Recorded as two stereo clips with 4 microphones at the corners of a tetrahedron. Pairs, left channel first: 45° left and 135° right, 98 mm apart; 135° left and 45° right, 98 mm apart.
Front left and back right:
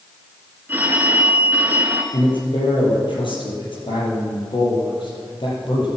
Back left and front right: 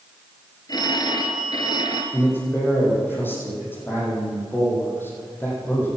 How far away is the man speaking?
About 6 m.